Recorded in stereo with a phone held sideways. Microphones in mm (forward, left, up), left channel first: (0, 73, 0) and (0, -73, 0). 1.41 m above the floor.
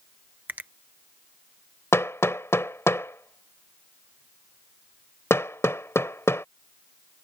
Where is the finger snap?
15° right (ahead or behind).